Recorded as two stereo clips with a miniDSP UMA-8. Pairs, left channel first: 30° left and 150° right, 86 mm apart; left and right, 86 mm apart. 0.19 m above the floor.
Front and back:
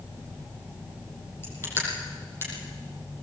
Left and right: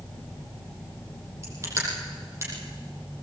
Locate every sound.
1.4 s crushing: 30° right, 6 m